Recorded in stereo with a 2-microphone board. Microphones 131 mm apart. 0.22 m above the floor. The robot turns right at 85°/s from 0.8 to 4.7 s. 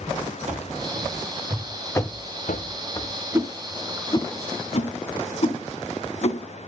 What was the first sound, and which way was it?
Running footsteps, 65° right (ahead or behind).